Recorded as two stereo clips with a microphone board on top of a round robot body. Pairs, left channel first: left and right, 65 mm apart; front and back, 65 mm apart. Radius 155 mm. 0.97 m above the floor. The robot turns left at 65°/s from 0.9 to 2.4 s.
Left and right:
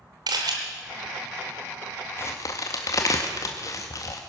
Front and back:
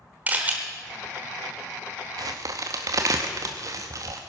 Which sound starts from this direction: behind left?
A crack, at 2.2 s.